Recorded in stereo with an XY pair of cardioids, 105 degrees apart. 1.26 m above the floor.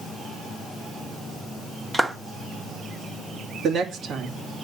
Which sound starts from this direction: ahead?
A clap, at 1.9 s.